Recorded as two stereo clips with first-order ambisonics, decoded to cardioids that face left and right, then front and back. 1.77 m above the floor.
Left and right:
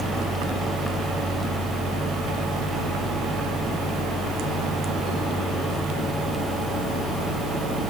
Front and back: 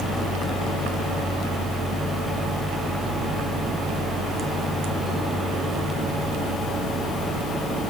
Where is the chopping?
I don't hear chopping.